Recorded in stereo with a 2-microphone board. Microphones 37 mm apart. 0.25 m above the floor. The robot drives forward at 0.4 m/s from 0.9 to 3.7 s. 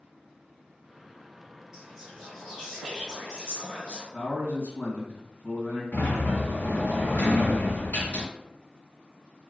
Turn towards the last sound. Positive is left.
turn(degrees=55)  # may be behind; listen again after turning